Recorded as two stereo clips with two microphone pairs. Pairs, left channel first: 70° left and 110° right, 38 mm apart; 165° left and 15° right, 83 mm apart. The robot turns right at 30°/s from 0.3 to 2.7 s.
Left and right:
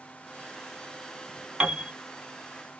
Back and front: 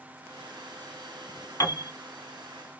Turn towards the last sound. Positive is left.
turn(degrees=-130)